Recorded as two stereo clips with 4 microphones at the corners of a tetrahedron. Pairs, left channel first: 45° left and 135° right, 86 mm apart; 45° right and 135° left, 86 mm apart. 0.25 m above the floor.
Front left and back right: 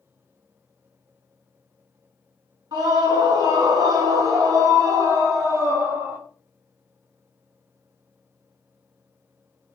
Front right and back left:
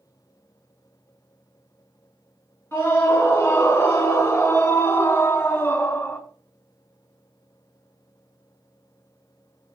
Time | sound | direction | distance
2.7 | a scream | 105° right | 3.5 m